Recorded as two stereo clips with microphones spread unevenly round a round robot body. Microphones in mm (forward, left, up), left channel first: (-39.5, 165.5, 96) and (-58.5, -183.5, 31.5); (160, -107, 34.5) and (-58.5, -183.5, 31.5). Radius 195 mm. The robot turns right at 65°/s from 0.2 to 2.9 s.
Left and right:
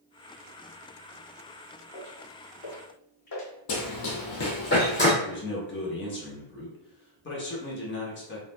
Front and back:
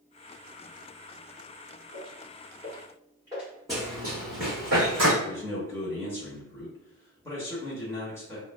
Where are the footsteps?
80° left, 1.6 m; by 3.5 s 115° left, 1.2 m.